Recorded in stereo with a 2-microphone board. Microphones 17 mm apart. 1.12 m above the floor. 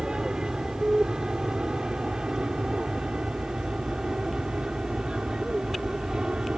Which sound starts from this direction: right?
An aircraft, at 0.0 s.